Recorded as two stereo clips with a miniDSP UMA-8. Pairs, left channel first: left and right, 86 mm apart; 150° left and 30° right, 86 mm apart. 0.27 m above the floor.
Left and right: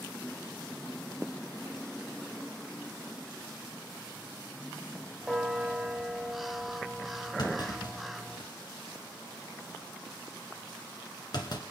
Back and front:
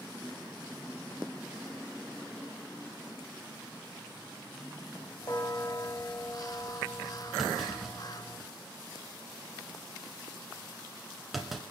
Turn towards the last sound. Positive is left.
turn(degrees=60)